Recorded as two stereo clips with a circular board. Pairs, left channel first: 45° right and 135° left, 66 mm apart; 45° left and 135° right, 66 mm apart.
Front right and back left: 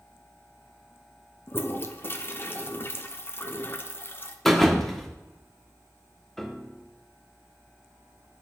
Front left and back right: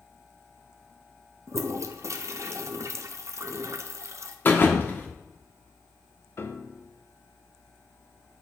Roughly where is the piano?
Ahead left.